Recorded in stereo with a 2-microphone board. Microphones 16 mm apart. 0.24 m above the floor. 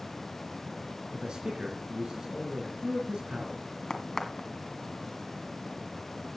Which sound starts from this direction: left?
A crack, at 3.9 s.